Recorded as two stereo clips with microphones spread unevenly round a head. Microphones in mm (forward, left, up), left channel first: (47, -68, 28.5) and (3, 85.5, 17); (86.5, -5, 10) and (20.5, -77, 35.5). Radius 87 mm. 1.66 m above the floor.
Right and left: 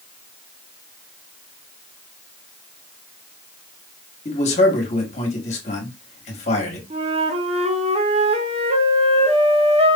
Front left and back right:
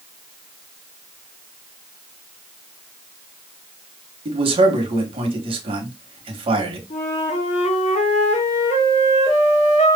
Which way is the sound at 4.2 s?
125° right.